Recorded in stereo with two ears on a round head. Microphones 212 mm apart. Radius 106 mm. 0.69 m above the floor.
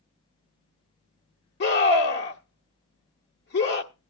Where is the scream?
50° left (ahead or behind), 1.4 m.